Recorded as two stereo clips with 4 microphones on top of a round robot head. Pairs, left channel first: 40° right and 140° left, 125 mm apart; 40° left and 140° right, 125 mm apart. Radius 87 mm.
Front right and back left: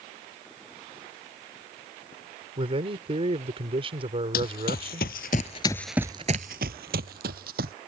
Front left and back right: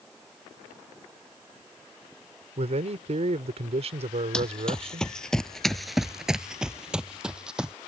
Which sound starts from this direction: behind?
A man speaking, at 2.6 s.